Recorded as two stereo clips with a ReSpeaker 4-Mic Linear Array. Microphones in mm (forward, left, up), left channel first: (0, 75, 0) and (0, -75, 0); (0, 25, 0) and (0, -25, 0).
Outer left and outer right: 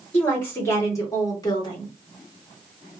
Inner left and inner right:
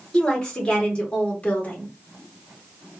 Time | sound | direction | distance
0.1 | a woman speaking | 10° left (ahead or behind) | 1.6 m